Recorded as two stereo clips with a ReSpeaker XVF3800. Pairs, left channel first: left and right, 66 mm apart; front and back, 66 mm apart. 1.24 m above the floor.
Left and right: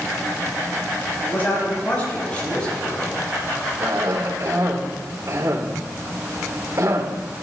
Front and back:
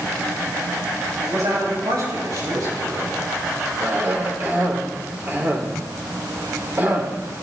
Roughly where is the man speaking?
Behind left.